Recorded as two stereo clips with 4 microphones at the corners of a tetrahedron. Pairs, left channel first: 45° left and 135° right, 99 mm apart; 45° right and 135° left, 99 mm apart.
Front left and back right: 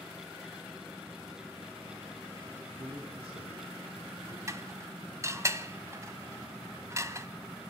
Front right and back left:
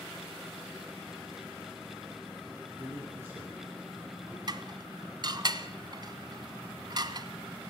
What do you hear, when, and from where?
2.8 s a man speaking: 160° right, 7 m
4.5 s dishes clattering: 170° left, 1.3 m